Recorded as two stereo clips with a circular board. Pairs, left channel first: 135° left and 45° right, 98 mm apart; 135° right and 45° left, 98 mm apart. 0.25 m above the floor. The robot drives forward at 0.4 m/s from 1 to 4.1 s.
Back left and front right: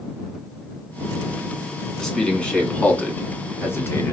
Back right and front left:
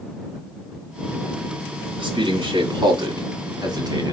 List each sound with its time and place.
2.0 s a man speaking: 50° left, 2.0 m; by 4.1 s 80° left, 1.7 m